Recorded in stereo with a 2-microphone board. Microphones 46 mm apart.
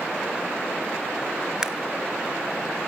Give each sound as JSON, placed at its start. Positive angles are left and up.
{"t": 1.6, "sound": "a camera shutter", "side_deg": -15, "distance_m": 0.8}